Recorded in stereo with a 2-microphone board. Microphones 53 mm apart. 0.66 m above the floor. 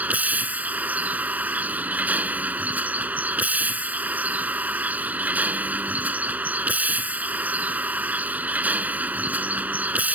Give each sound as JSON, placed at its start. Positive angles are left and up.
{"t": 0.0, "sound": "a vehicle", "side_deg": -30}